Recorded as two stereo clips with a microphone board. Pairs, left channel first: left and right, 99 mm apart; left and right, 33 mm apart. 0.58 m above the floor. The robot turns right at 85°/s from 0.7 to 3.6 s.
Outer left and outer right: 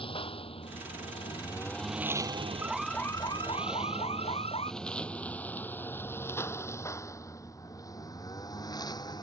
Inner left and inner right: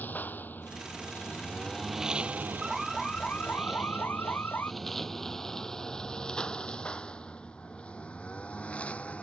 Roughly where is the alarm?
Ahead.